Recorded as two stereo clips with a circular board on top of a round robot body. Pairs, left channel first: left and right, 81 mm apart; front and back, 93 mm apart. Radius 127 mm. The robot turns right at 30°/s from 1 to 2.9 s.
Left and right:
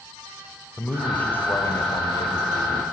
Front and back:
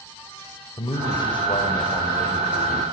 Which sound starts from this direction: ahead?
A man speaking, at 0.8 s.